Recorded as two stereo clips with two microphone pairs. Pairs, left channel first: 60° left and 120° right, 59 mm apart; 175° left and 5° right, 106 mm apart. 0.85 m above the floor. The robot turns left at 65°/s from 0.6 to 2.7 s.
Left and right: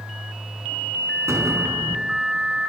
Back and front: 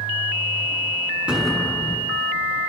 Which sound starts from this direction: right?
An explosion, at 1.3 s.